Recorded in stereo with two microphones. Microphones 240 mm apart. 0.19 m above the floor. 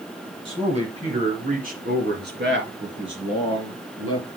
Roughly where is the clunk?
No clunk in this recording.